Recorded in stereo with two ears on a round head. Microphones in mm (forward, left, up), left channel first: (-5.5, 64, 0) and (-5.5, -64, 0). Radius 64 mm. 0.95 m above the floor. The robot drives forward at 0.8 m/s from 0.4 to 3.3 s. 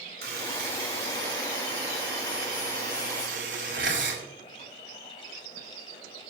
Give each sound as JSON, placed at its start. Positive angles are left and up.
{"t": 0.2, "sound": "a buzzer", "side_deg": -85, "distance_m": 5.0}